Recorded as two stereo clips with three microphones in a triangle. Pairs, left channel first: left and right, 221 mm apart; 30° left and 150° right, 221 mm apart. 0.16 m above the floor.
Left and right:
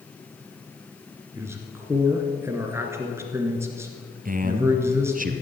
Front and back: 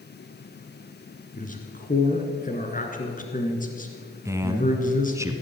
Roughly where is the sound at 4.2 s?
Right.